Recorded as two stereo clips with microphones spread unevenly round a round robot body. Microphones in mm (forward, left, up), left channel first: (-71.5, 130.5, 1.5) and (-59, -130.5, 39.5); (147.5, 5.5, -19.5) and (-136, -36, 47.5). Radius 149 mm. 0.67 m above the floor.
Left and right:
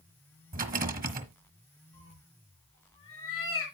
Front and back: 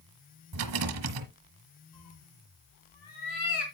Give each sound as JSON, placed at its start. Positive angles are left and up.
{"t": 0.5, "sound": "a rattle", "azimuth_deg": -145, "distance_m": 1.2}
{"t": 1.9, "sound": "a cat meowing", "azimuth_deg": 15, "distance_m": 4.0}